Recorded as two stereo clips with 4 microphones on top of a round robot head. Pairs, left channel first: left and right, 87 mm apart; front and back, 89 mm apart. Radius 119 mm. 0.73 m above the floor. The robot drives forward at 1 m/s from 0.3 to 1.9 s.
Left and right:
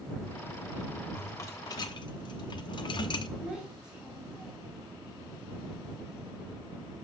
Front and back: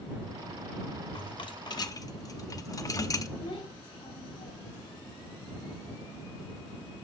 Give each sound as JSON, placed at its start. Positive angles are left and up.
{"t": 1.1, "sound": "a rattle", "azimuth_deg": 25, "distance_m": 1.3}
{"t": 3.4, "sound": "a child speaking", "azimuth_deg": -10, "distance_m": 3.5}